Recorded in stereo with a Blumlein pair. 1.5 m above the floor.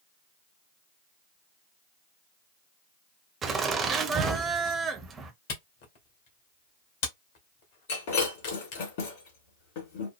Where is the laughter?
20° right, 0.9 m.